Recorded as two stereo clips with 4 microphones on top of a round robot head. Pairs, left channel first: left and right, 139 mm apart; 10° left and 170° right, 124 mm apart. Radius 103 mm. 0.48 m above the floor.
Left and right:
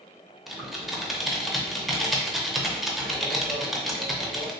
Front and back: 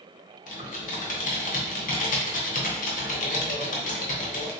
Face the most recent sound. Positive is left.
turn(degrees=0)